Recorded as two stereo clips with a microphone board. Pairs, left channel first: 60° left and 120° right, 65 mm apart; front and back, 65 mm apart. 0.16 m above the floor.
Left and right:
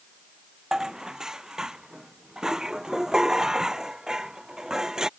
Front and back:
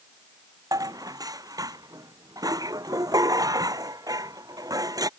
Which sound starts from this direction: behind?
Dishes clattering, at 0.7 s.